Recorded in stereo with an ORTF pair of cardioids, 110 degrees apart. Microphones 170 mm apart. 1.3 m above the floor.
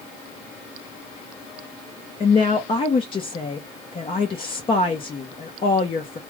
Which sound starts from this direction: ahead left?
A woman speaking, at 2.2 s.